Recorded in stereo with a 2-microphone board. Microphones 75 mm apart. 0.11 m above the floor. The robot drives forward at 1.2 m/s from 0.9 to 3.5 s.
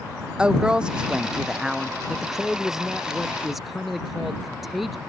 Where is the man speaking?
Centre (ahead or behind).